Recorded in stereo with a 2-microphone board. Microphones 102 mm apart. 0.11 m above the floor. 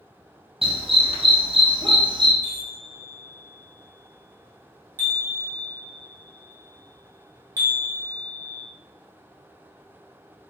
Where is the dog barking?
70° right (ahead or behind), 1.5 m; by 2.3 s 50° right (ahead or behind), 1.2 m.